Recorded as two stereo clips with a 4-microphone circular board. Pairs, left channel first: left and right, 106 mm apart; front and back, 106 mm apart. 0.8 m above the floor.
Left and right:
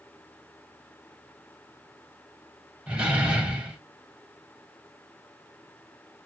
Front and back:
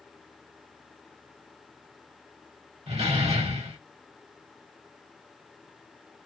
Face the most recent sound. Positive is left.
turn(degrees=-170)